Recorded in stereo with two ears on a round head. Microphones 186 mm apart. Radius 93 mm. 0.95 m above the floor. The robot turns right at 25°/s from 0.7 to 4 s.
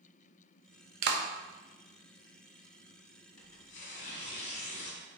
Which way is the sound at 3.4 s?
70° left (ahead or behind).